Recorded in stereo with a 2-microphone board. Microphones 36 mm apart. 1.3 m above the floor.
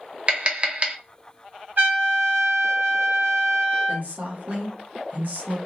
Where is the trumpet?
70° right (ahead or behind), 1.7 m.